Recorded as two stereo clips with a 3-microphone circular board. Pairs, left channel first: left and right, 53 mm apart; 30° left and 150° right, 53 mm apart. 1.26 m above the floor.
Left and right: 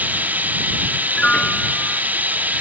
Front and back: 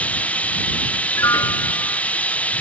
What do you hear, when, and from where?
0.0 s running water: 35° right
1.1 s a piano: 15° left